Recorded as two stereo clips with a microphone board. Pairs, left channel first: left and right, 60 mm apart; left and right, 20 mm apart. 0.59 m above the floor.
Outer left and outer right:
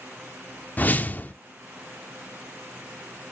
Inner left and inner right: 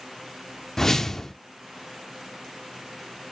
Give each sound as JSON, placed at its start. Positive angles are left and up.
{"t": 0.8, "sound": "a whoosh", "side_deg": 30, "distance_m": 0.5}